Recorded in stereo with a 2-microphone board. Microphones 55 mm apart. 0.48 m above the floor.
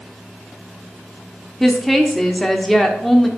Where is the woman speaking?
5° left (ahead or behind), 0.9 m.